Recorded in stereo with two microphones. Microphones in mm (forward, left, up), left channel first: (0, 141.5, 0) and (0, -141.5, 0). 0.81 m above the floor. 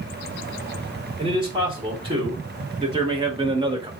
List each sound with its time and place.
1.2 s a man speaking: 20° right (ahead or behind), 2.5 m; by 3.9 s 15° right (ahead or behind), 1.1 m